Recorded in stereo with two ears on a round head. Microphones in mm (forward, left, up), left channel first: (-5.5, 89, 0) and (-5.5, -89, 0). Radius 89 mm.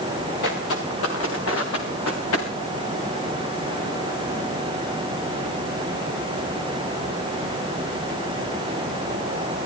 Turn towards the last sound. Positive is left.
turn(degrees=85)